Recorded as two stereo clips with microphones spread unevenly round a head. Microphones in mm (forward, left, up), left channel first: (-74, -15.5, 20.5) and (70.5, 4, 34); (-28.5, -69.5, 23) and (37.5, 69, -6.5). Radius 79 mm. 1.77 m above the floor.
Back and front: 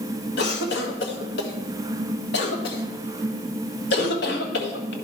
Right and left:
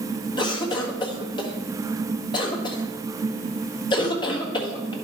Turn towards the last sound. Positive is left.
turn(degrees=180)